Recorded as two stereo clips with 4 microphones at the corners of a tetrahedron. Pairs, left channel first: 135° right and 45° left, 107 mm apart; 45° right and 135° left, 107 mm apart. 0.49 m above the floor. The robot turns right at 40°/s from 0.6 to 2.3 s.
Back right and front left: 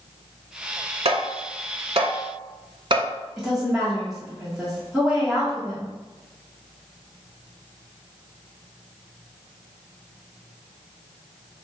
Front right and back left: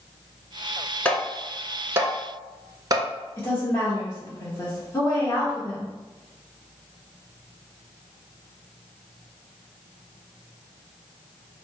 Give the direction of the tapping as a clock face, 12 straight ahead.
11 o'clock.